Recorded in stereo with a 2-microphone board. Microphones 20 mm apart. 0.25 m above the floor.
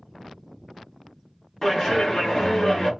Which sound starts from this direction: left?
A clap, at 1.6 s.